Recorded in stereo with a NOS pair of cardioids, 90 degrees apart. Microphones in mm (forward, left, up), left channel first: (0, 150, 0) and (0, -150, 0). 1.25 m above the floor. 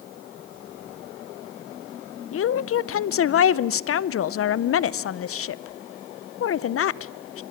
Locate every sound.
2.3 s a woman speaking: 50° left, 0.7 m